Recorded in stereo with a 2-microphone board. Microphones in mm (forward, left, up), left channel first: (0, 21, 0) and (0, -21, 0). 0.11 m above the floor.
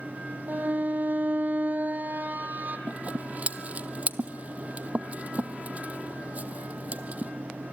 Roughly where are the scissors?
Right.